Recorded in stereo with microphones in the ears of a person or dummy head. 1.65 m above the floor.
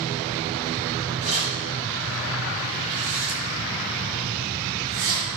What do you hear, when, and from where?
1.2 s keys jangling: 45° right (ahead or behind), 5 m; by 5.3 s 80° right, 5.5 m